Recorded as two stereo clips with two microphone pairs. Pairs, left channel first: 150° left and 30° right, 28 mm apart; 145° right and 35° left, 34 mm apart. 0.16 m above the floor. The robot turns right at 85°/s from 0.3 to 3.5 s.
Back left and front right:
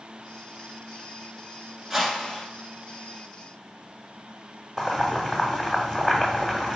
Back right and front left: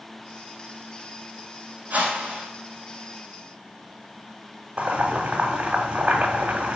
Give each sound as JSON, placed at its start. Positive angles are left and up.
{"t": 1.9, "sound": "a whoosh", "azimuth_deg": 50, "distance_m": 1.3}
{"t": 4.8, "sound": "boiling", "azimuth_deg": 70, "distance_m": 1.0}